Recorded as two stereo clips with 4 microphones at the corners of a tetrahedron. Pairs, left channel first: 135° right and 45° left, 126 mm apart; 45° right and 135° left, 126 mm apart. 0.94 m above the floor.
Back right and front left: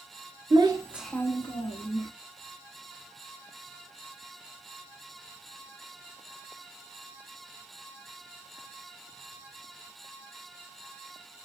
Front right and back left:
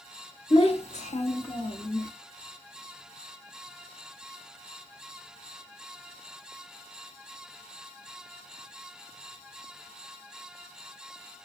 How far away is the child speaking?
About 0.8 m.